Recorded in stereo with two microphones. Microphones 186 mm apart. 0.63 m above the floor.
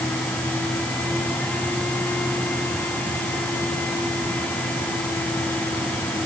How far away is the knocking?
No knocking in this recording.